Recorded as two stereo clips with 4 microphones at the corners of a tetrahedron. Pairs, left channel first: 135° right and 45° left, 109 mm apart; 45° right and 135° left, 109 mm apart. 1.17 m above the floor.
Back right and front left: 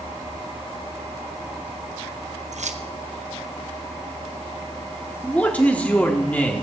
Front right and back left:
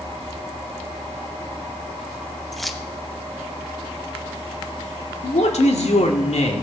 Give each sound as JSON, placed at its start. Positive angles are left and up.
{"t": 2.5, "sound": "keys jangling", "azimuth_deg": 45, "distance_m": 0.9}
{"t": 5.2, "sound": "a man speaking", "azimuth_deg": -55, "distance_m": 2.5}